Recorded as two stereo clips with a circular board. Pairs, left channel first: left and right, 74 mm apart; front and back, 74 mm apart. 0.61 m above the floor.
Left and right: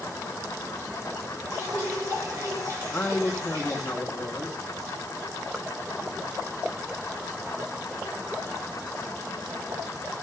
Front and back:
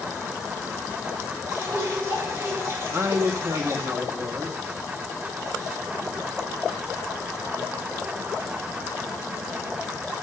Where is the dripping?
130° right, 6 m.